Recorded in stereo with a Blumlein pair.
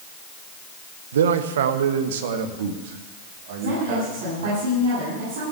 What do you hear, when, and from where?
1.1 s a man speaking: 65° right, 1.0 m; by 4.6 s 50° right, 3 m
3.6 s a woman speaking: 55° right, 8.5 m